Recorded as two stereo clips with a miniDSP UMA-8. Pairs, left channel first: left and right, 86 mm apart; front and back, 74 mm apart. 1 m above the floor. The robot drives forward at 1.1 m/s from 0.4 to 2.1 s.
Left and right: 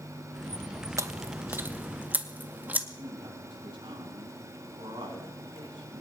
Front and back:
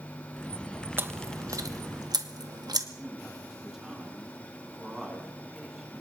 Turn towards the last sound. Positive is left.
turn(degrees=-95)